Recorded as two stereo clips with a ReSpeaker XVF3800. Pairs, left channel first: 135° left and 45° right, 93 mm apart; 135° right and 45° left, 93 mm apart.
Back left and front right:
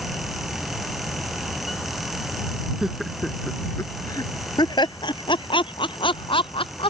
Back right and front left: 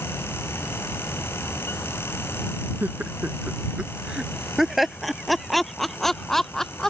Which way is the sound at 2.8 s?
20° left.